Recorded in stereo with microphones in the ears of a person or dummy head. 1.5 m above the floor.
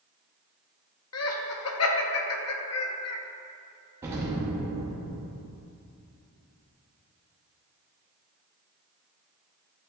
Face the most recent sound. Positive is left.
turn(degrees=-20)  # may be behind; listen again after turning